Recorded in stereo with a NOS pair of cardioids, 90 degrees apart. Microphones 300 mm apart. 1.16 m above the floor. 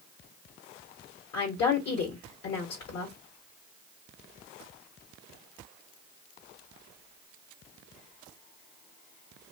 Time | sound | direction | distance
1.3 | a woman speaking | 65° left | 1.1 m